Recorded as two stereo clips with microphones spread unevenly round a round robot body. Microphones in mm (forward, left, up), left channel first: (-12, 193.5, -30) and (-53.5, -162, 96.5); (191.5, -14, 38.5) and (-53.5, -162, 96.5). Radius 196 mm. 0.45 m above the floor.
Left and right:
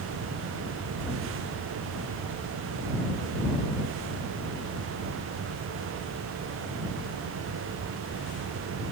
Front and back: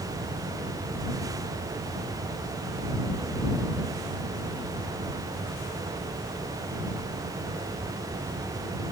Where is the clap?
I don't hear a clap.